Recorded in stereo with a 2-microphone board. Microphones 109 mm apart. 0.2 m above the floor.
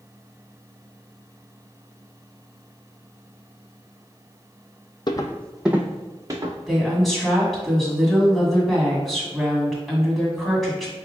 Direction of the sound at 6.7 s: Centre (ahead or behind).